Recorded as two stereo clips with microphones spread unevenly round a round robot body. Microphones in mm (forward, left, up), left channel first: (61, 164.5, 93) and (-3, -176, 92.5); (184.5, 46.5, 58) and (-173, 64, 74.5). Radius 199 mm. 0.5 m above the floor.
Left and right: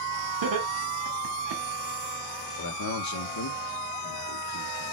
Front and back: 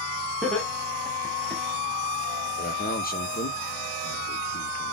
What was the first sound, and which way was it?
Laughter, 90° right.